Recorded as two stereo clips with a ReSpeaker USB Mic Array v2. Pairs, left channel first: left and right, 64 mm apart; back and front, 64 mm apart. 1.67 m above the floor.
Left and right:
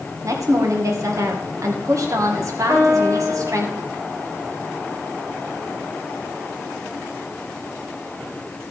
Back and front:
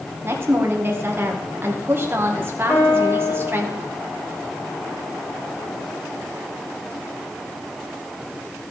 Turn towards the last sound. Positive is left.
turn(degrees=-120)